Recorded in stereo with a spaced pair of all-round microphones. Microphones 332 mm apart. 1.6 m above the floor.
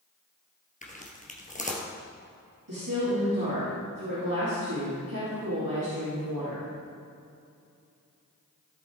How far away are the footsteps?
About 1.9 m.